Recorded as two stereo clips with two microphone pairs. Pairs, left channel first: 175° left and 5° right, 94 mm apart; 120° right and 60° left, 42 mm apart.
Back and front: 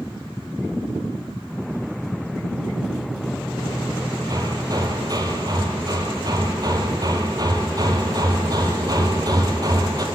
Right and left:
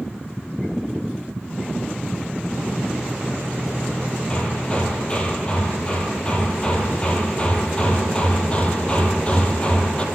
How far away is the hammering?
About 2 m.